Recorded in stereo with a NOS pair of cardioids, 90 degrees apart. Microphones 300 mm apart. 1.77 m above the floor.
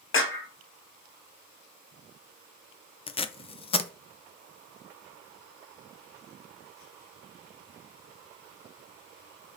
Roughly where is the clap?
Ahead left.